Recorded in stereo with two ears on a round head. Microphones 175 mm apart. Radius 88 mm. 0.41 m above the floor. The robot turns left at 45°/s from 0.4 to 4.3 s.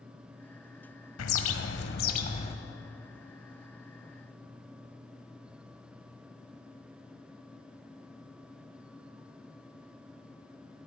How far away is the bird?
About 1.0 m.